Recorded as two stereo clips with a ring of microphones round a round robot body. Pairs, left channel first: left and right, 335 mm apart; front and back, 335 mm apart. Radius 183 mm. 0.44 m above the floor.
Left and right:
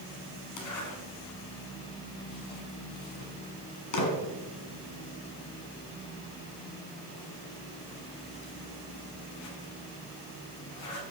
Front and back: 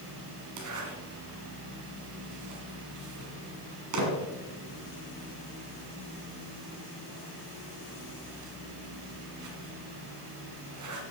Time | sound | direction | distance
0.6 | a zipper | 135° left | 1.9 m